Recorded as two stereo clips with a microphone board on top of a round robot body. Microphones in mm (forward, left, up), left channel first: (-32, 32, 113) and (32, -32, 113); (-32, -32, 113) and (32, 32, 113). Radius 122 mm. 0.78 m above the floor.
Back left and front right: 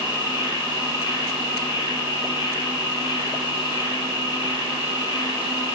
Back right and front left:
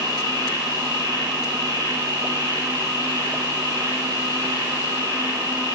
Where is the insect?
Straight behind, 5 m.